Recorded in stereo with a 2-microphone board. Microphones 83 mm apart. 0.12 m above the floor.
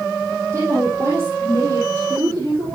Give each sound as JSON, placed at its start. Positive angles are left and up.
{"t": 0.5, "sound": "a woman speaking", "side_deg": -30, "distance_m": 4.0}